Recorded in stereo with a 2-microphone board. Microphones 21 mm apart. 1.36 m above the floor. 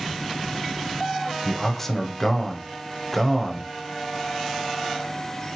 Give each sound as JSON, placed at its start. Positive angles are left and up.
{"t": 1.4, "sound": "a man speaking", "side_deg": 10, "distance_m": 0.8}